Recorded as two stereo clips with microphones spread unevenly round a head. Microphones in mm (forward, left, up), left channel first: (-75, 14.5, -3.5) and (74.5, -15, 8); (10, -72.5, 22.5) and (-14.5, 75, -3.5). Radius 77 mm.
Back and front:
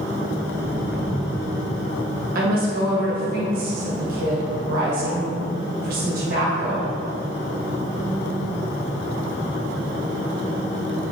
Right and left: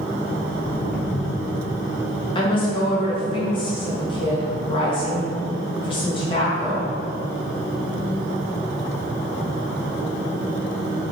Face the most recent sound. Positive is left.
turn(degrees=-20)